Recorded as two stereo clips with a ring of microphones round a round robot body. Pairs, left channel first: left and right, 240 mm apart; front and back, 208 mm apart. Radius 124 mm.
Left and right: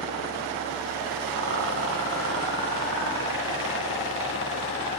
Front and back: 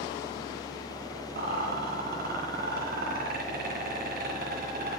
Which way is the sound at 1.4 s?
125° right.